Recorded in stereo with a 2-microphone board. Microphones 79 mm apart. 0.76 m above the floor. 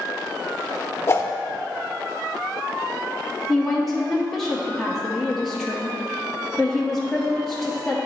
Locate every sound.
1.1 s a whoosh: 35° left (ahead or behind), 0.6 m
3.5 s a woman speaking: centre (ahead or behind), 0.7 m